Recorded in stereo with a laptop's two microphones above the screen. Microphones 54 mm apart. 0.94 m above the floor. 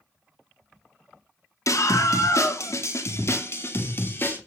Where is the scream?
75° left (ahead or behind), 2 m; by 4.4 s 40° left (ahead or behind), 3 m.